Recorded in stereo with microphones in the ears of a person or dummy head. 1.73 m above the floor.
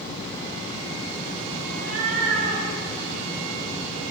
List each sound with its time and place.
1.7 s a cat meowing: 55° right (ahead or behind), 2.5 m